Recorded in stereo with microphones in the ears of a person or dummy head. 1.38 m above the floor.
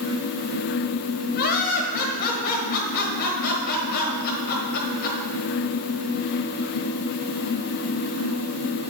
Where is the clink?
I don't hear a clink.